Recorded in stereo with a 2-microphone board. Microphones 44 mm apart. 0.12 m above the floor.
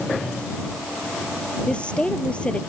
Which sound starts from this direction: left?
A woman speaking, at 1.7 s.